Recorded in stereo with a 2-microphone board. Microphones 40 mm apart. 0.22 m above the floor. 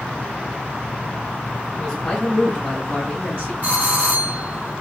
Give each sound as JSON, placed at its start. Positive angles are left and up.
{"t": 1.8, "sound": "a man speaking", "side_deg": 30, "distance_m": 3.0}
{"t": 3.6, "sound": "a doorbell", "side_deg": 40, "distance_m": 3.0}